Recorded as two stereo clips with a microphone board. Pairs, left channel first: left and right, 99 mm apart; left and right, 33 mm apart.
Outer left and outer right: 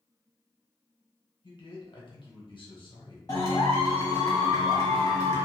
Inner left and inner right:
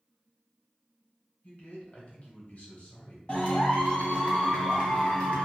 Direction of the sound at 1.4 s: 55° left (ahead or behind).